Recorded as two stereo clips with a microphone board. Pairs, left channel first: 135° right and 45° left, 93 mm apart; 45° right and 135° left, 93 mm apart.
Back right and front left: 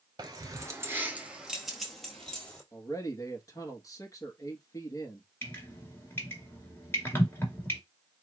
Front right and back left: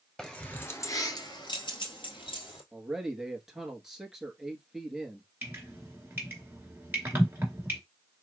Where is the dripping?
175° right, 1.9 m.